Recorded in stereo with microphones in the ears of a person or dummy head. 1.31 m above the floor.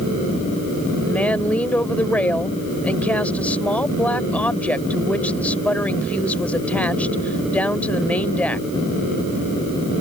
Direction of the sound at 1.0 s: 10° left (ahead or behind).